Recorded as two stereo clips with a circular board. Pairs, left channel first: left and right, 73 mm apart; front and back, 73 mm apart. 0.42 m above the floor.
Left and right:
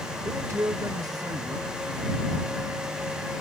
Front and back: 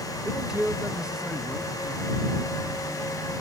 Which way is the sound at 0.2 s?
100° right.